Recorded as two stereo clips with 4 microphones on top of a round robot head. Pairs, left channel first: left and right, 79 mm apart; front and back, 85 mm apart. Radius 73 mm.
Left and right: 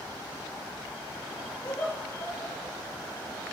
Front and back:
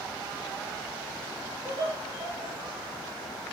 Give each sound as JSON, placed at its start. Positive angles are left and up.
{"t": 1.6, "sound": "laughter", "azimuth_deg": 150, "distance_m": 3.5}